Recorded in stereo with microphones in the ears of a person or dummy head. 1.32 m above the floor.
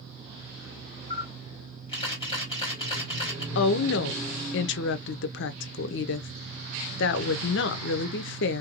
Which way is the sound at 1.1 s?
25° left (ahead or behind).